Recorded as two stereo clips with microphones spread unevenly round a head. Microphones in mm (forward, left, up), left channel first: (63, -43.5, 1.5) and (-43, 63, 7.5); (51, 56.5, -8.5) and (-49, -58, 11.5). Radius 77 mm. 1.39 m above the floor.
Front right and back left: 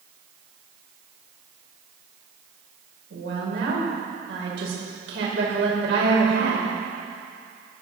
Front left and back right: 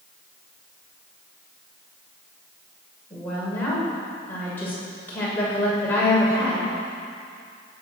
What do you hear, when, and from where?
3.1 s a woman speaking: 130° left, 6.5 m